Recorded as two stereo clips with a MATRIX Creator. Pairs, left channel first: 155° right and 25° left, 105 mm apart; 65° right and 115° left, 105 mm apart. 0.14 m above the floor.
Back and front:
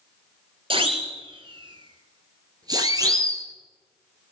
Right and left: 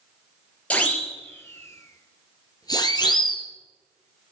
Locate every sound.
0.7 s a siren: 10° left, 3 m; by 3.4 s 35° right, 3 m